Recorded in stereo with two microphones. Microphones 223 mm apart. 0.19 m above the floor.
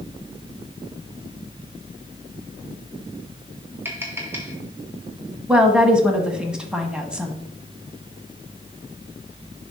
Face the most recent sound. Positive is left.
turn(degrees=-5)  # may be behind; listen again after turning